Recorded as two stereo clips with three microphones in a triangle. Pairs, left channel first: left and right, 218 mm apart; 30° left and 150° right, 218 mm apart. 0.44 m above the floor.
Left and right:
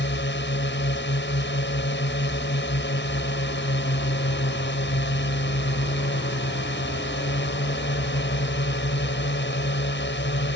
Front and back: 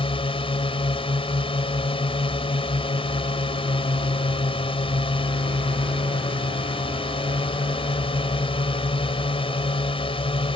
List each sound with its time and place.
0.0 s a drone: 90° left